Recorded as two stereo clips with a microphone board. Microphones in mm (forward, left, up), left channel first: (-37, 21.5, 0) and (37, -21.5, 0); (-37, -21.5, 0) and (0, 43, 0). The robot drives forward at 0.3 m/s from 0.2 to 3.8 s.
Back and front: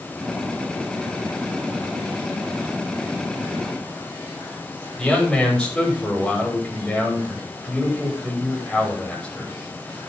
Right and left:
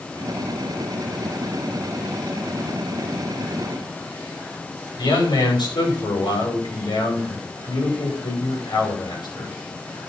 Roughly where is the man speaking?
Behind right.